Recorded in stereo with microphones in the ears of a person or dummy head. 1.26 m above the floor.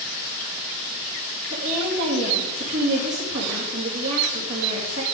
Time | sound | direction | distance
1.5 | a woman speaking | 75° right (ahead or behind) | 2.5 m